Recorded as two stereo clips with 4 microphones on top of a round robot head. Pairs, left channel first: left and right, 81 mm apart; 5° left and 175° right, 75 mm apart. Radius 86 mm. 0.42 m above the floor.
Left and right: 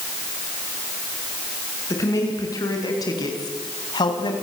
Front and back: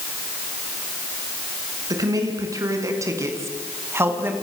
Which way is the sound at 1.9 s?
145° left.